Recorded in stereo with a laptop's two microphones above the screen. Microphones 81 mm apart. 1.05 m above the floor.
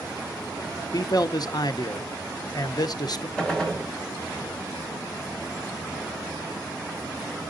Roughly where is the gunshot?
Centre.